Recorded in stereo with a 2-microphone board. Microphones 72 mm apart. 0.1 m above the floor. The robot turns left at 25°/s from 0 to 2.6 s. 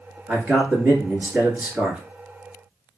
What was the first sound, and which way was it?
A man speaking, 30° right (ahead or behind).